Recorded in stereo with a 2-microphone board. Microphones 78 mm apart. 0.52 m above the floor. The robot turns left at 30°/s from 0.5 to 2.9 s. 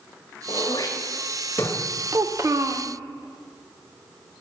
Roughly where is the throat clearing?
Left.